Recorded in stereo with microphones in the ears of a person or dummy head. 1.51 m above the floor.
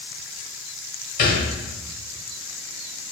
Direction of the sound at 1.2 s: 45° left (ahead or behind).